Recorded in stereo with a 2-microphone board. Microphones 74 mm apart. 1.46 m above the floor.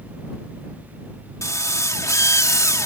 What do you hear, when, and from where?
1.4 s a drill: 45° left (ahead or behind)